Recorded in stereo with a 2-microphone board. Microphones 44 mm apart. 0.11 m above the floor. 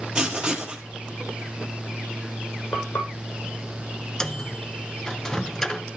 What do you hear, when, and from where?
0.1 s writing: 15° right (ahead or behind), 2.5 m
2.7 s frying: 70° left (ahead or behind), 4.5 m
4.2 s a microwave: 15° left (ahead or behind), 0.9 m